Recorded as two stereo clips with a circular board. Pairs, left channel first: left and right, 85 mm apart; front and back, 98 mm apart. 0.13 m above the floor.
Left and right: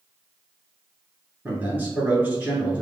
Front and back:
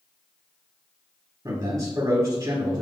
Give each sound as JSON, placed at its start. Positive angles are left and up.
{"t": 1.4, "sound": "a man speaking", "azimuth_deg": -150, "distance_m": 1.4}